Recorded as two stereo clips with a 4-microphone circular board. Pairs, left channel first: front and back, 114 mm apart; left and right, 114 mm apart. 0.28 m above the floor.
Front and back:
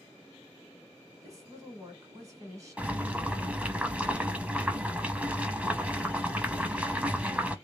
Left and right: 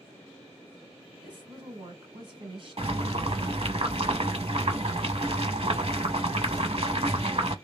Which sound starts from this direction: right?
Boiling, at 2.8 s.